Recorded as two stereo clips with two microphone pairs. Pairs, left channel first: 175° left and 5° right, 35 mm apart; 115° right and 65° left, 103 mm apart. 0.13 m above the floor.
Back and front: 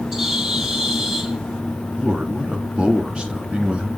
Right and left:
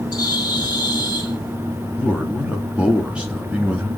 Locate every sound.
0.1 s a bird: 75° right, 1.6 m
2.0 s a man speaking: 5° right, 1.2 m